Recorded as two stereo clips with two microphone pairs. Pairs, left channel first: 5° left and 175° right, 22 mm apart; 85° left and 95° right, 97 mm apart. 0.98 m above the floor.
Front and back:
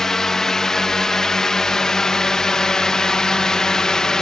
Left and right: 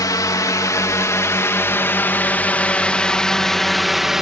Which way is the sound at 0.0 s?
60° left.